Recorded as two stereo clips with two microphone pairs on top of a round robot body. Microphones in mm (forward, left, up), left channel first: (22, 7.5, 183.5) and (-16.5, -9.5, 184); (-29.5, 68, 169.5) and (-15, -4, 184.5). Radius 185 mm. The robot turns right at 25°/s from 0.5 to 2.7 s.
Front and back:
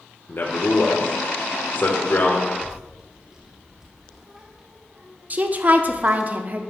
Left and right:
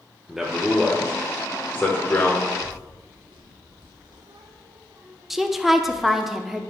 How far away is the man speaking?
About 1.4 m.